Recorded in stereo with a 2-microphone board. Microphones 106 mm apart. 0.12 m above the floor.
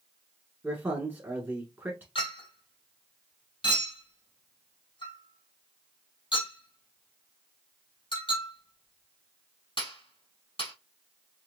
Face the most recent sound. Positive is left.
turn(degrees=55)  # may be behind; listen again after turning